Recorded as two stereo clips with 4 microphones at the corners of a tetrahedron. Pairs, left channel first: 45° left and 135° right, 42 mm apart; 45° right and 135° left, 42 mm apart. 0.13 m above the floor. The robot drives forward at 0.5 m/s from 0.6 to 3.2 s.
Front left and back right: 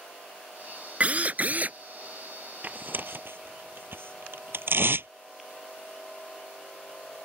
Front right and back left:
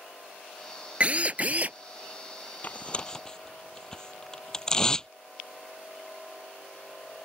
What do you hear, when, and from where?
1.0 s a drill: 175° right
2.6 s tearing paper: 90° right; by 5.1 s 115° right